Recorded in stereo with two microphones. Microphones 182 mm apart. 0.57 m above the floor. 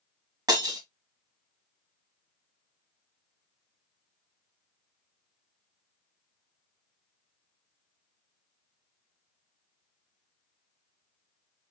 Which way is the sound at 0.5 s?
20° right (ahead or behind).